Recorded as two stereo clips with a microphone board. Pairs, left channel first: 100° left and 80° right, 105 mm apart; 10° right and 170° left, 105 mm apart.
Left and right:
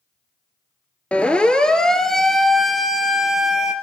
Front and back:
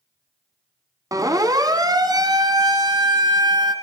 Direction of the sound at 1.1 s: 170° left.